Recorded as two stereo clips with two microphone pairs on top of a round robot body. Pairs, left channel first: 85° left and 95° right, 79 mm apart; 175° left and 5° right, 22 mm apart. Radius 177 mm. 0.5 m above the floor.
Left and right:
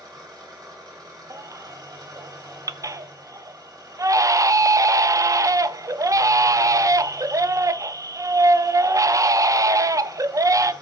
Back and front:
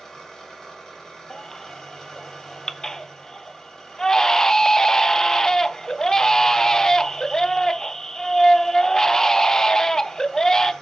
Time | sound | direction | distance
0.0 | an engine running | 125° right | 3 m
1.3 | a baby crying | 135° right | 0.6 m